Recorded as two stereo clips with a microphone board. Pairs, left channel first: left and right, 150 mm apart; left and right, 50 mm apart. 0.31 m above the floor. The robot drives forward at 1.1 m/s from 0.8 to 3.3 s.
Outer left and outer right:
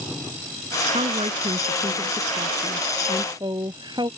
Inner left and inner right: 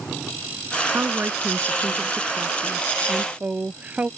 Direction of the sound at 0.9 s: 45° right (ahead or behind).